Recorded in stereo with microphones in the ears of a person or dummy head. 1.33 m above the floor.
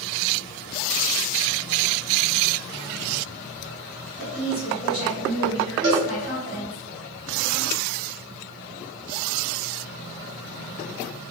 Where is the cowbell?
70° right (ahead or behind), 0.9 m.